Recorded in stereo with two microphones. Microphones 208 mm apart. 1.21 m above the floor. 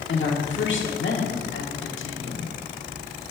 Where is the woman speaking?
70° left (ahead or behind), 1.4 m.